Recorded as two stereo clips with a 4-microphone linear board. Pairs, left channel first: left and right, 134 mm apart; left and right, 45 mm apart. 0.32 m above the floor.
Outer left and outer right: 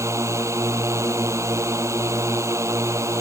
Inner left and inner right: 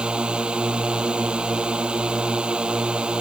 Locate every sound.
0.0 s a drone: 20° right (ahead or behind)